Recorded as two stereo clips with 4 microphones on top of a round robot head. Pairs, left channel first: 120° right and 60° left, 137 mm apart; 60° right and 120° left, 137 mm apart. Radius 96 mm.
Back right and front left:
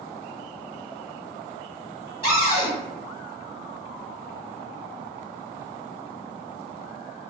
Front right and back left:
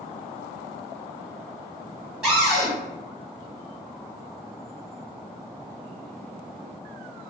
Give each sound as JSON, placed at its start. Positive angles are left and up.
{"t": 2.2, "sound": "a cupboard door", "azimuth_deg": -155, "distance_m": 1.7}